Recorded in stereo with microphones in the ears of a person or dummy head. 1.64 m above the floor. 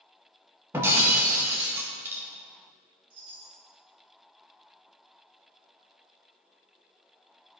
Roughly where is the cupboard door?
No cupboard door in this recording.